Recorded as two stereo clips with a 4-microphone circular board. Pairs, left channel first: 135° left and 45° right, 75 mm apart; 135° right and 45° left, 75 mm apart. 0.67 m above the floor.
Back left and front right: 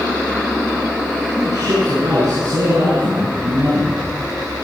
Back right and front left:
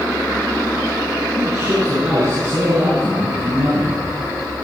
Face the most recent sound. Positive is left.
turn(degrees=-5)